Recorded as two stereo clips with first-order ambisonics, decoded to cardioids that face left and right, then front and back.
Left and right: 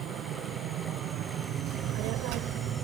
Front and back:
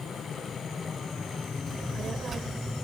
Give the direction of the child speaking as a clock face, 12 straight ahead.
4 o'clock.